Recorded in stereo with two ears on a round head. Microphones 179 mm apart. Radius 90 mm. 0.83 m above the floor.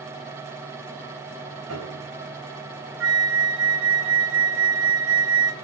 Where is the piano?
80° right, 6.5 m.